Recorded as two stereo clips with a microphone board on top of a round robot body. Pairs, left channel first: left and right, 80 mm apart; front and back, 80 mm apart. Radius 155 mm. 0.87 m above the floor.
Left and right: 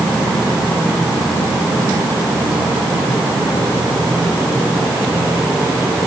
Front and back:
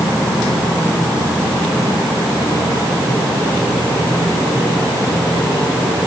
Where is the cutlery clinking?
No cutlery clinking in this recording.